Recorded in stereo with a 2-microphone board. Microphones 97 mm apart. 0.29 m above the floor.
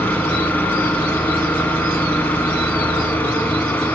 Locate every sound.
0.0 s an engine running: 20° left (ahead or behind), 1.3 m